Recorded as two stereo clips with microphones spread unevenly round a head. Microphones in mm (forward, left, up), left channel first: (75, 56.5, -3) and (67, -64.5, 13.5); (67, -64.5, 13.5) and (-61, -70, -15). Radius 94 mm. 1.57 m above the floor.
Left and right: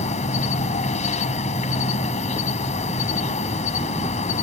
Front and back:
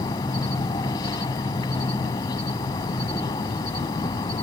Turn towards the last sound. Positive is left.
turn(degrees=60)